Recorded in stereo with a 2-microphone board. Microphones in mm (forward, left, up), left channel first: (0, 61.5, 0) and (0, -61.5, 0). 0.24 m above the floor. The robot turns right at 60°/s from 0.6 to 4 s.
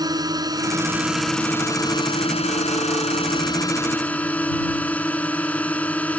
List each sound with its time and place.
0.0 s a drone: 40° right; by 6.2 s 165° left